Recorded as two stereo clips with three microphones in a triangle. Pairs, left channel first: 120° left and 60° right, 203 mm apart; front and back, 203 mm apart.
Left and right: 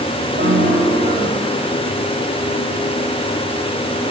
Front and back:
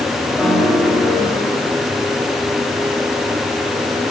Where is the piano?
90° right, 4.5 m.